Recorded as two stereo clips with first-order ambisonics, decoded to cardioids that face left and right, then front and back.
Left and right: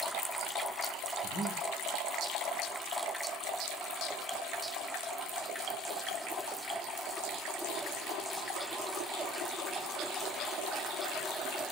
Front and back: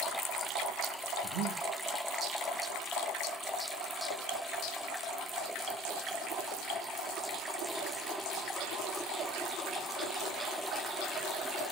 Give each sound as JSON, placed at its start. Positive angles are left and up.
{"t": 1.2, "sound": "breathing", "azimuth_deg": -150, "distance_m": 3.0}